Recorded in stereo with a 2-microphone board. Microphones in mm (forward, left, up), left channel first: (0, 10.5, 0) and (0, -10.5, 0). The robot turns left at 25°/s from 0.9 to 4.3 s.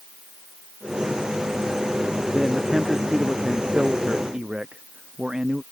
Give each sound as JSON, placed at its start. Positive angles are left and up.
{"t": 2.3, "sound": "a man speaking", "azimuth_deg": 5}